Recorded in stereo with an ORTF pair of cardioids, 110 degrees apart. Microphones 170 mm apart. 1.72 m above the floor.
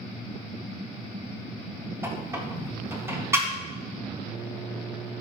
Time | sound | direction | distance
2.0 | a squeak | 15° right | 2 m